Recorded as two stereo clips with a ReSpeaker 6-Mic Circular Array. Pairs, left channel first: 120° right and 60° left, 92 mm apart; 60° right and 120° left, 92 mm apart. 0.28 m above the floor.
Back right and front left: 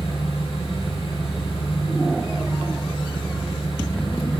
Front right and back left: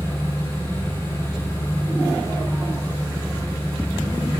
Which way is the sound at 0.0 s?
120° right.